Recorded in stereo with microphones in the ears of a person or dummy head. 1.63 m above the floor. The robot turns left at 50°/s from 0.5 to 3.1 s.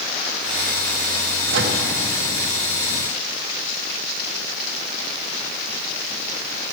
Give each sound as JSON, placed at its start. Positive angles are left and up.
{"t": 1.5, "sound": "a microwave", "side_deg": -70, "distance_m": 1.5}